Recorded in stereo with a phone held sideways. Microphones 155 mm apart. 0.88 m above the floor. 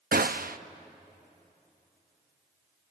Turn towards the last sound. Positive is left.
turn(degrees=-70)  # may be behind; listen again after turning